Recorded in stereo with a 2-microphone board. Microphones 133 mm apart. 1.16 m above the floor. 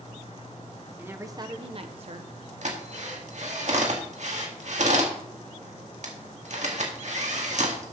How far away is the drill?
About 1.8 m.